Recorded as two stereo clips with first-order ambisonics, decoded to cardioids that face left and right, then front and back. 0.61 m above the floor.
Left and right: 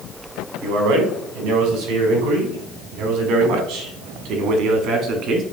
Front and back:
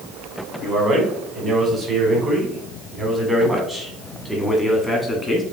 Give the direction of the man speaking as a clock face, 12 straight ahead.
4 o'clock.